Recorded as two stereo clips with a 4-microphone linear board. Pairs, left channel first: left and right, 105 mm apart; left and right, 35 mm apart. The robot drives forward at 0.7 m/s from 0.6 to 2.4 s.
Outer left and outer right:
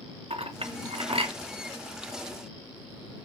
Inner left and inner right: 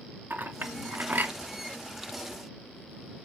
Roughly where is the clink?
Right.